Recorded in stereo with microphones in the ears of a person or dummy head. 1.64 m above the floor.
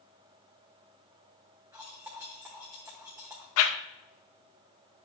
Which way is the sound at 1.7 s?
10° right (ahead or behind).